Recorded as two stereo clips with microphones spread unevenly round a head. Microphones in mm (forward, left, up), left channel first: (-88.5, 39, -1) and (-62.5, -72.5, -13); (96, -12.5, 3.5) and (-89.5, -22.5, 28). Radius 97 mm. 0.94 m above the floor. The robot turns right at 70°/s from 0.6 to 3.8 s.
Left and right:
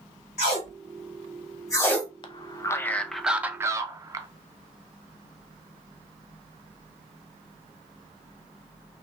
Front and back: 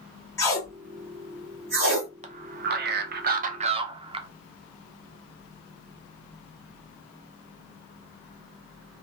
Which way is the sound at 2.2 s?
135° left.